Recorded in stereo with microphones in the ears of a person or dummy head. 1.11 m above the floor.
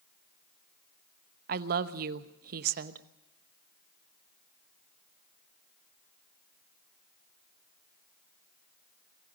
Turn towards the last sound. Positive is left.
turn(degrees=-55)  # may be behind; listen again after turning